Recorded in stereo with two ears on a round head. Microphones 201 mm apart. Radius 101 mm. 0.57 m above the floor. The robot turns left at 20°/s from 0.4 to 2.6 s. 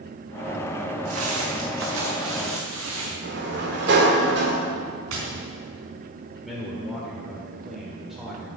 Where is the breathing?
I don't hear breathing.